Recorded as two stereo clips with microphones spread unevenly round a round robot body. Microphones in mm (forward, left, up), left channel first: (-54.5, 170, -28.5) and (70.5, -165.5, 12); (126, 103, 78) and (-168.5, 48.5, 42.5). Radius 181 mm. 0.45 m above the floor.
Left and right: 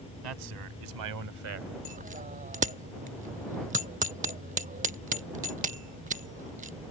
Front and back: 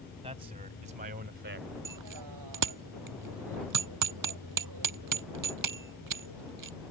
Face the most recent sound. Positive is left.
turn(degrees=-140)